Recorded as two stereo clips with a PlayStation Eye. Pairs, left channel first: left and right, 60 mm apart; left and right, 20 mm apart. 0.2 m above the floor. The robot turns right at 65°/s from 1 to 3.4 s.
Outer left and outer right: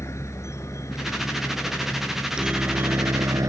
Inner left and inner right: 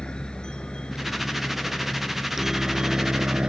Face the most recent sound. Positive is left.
turn(degrees=-60)  # may be behind; listen again after turning